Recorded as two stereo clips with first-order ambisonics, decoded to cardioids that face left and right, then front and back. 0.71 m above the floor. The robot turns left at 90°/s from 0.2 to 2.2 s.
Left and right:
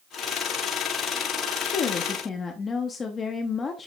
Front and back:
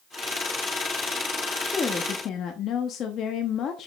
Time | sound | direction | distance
1.6 | a woman speaking | 85° left | 0.8 m